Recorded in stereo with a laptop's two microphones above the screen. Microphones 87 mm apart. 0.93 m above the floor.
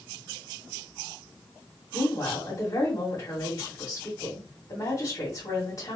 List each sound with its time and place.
1.9 s a woman speaking: 45° left (ahead or behind), 1.8 m